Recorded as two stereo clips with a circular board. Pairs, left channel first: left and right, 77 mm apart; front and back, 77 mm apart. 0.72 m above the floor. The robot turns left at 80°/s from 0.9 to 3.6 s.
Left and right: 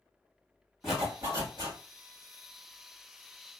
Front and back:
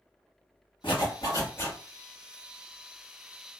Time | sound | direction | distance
0.8 | a zipper | 10° right | 2.5 m